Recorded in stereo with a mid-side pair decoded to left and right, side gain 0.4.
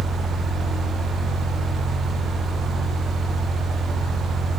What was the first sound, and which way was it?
A fan, 65° right.